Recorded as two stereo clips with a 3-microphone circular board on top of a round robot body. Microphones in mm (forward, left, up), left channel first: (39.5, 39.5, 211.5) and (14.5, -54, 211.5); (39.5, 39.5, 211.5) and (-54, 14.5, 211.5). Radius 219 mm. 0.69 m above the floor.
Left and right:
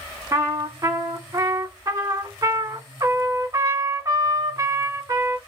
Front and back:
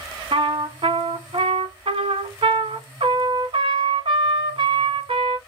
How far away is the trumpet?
About 1.3 m.